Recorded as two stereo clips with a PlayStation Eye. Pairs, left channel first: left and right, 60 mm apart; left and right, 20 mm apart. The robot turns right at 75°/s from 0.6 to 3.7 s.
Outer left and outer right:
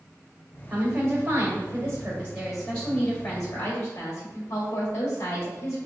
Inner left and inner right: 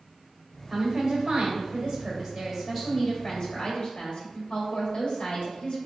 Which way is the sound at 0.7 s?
140° right.